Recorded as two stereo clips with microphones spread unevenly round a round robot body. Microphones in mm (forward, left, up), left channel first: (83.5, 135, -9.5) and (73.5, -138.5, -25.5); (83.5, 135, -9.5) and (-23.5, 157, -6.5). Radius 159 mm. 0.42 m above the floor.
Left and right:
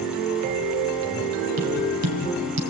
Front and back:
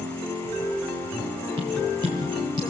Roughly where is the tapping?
Behind right.